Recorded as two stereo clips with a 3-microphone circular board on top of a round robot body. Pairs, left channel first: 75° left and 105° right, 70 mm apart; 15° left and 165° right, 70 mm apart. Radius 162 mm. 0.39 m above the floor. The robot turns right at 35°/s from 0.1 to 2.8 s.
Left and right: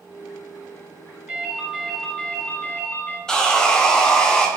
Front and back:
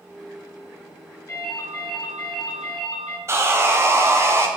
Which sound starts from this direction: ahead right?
A ringtone, at 1.3 s.